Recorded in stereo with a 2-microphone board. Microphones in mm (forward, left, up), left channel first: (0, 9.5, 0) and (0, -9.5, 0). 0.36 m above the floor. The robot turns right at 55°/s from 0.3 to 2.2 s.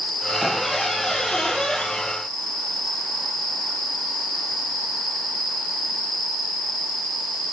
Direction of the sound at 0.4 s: 5° right.